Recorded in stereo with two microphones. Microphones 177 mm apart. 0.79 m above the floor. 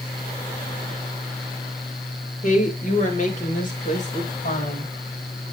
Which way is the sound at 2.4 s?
45° left (ahead or behind).